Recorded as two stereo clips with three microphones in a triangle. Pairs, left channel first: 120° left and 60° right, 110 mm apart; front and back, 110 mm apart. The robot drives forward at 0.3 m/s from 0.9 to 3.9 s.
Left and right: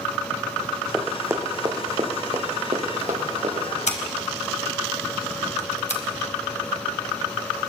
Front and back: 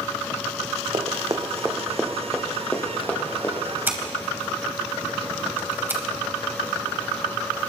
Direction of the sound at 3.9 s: 110° left.